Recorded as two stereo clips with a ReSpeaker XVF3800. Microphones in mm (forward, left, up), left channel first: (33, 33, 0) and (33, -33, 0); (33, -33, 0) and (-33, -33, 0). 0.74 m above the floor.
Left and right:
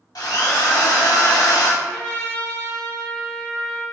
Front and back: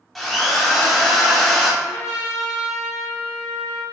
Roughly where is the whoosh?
No whoosh in this recording.